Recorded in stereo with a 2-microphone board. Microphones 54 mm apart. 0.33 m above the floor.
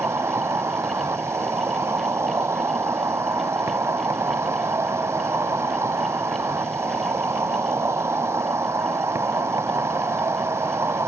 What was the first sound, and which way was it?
An insect, 65° right (ahead or behind).